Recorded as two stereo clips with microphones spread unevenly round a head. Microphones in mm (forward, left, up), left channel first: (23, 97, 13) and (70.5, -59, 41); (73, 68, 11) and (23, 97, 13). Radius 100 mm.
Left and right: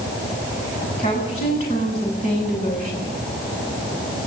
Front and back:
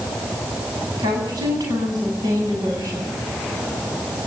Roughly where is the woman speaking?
Behind.